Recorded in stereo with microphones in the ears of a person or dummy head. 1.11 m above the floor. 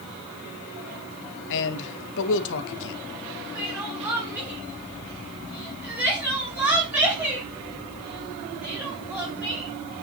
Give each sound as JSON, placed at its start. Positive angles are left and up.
{"t": 1.5, "sound": "a man speaking", "side_deg": 70, "distance_m": 0.8}
{"t": 3.5, "sound": "crying", "side_deg": -10, "distance_m": 3.5}